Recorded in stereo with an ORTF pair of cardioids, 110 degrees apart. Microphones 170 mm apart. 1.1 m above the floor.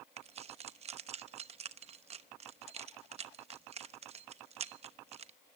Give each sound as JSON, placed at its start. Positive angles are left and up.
{"t": 0.2, "sound": "keys jangling", "azimuth_deg": -40, "distance_m": 0.9}